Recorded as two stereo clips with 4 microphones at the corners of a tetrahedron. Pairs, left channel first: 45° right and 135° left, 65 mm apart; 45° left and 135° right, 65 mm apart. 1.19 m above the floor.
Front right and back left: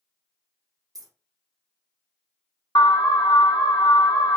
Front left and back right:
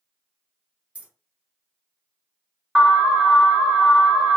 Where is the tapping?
I don't hear tapping.